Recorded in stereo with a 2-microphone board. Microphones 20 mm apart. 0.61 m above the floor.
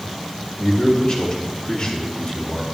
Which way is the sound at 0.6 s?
40° left (ahead or behind).